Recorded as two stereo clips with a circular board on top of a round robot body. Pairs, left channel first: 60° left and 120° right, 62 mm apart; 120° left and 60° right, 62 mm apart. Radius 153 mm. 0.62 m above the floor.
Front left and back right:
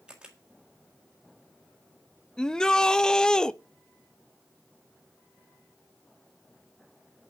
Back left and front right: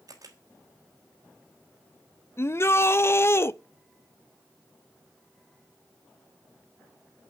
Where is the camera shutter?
45° right, 4 m.